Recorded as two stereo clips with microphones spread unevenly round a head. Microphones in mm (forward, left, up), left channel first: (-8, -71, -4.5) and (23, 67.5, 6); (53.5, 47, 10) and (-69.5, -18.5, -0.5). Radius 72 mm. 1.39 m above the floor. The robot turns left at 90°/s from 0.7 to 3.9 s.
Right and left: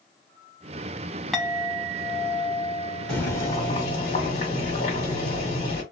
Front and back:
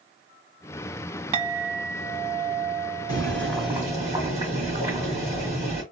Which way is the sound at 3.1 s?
10° right.